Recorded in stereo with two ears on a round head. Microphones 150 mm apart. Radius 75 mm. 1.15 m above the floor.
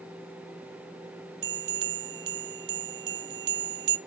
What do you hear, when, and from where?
1.4 s a bell: 65° right (ahead or behind), 0.6 m